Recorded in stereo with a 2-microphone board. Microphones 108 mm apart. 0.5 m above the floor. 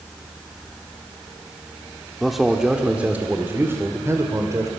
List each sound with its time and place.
2.2 s a man speaking: centre (ahead or behind), 1.6 m; by 4.7 s 30° right (ahead or behind), 2.5 m